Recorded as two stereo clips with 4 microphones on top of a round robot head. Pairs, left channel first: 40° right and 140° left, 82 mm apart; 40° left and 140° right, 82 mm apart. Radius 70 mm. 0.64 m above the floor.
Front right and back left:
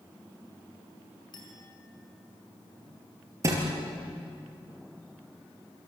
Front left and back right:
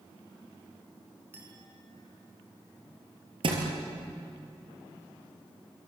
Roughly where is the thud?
Behind.